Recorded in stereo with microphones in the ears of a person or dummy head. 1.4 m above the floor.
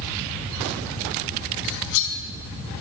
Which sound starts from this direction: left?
Cutlery clinking, at 1.6 s.